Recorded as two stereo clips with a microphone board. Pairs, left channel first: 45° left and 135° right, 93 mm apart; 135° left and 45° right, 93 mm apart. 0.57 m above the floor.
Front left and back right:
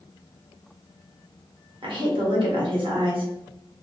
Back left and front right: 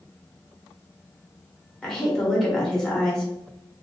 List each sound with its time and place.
1.8 s a woman speaking: 140° right, 1.9 m